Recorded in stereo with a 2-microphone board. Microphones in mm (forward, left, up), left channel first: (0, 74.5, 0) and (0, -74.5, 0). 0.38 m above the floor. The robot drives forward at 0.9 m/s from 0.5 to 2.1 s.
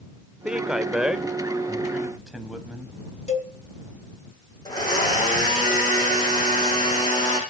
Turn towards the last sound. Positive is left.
turn(degrees=30)  # may be behind; listen again after turning